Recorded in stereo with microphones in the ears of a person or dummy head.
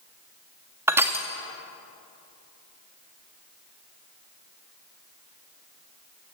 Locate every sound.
0.9 s crushing: 10° right (ahead or behind), 0.6 m